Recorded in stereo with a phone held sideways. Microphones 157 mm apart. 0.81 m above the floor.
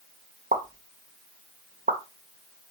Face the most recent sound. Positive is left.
turn(degrees=-60)  # may be behind; listen again after turning